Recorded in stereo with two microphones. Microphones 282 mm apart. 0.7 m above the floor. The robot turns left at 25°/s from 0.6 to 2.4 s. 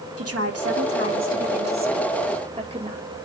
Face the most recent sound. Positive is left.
turn(degrees=-155)